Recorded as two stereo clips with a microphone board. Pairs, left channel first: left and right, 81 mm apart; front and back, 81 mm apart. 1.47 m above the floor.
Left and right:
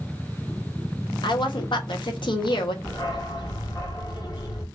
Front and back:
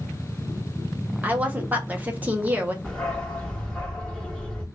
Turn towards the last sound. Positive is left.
turn(degrees=75)